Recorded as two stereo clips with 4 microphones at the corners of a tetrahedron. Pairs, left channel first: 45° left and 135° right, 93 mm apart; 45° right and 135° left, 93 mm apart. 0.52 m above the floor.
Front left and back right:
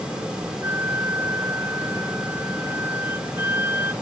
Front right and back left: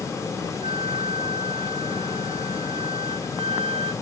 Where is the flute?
160° left.